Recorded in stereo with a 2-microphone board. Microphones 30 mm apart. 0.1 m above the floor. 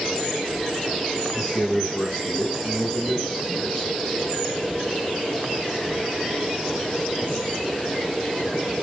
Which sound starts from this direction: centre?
A man speaking, at 1.3 s.